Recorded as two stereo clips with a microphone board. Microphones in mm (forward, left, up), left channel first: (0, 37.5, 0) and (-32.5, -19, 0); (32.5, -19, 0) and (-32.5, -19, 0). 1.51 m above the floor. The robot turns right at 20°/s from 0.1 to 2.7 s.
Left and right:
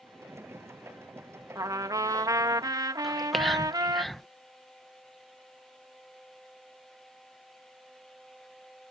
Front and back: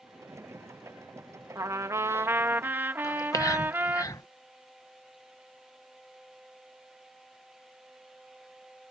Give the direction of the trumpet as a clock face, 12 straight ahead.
5 o'clock.